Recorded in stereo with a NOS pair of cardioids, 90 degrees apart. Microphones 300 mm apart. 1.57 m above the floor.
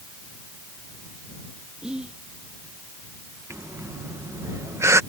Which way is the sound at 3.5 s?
10° right.